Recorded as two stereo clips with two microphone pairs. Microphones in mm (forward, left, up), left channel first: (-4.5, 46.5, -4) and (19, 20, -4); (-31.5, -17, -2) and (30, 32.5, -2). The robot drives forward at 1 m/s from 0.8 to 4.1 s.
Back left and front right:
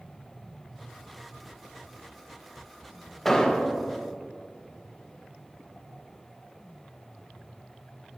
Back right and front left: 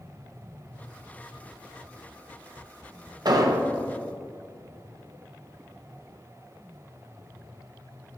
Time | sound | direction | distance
3.2 | an explosion | 55° left | 0.7 m